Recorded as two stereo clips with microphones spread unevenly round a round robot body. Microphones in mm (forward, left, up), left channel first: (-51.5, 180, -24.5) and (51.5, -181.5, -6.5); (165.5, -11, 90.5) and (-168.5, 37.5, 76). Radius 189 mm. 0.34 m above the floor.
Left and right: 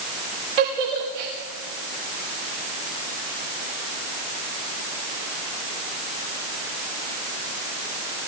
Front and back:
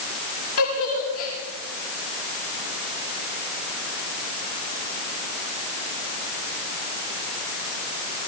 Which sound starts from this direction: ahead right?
A giggle, at 0.6 s.